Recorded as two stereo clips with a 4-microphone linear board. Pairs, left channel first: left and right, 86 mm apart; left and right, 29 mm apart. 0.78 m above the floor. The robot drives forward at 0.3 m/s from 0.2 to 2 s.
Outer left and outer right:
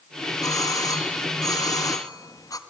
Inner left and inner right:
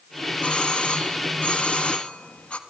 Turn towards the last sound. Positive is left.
turn(degrees=45)  # may be behind; listen again after turning